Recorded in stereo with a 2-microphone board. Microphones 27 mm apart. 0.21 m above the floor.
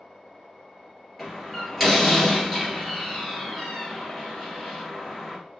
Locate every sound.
1.2 s a door slam: 5° right (ahead or behind), 2.5 m